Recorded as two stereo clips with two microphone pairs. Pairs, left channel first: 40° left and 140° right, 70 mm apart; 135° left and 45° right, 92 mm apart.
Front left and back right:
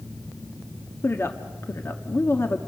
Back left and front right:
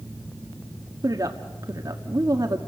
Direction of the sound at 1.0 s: 5° right.